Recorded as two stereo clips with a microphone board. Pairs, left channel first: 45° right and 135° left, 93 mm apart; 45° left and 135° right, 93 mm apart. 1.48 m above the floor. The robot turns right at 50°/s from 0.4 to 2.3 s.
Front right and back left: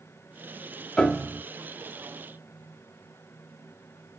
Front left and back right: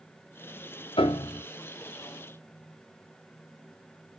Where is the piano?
35° left, 0.7 m; by 1.4 s 60° left, 0.7 m.